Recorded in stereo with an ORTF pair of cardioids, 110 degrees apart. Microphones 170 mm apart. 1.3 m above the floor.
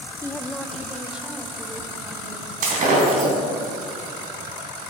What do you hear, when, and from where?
0.2 s a woman speaking: 15° left, 0.6 m; by 2.5 s 15° right, 2.5 m
2.6 s breaking glass: 55° right, 3 m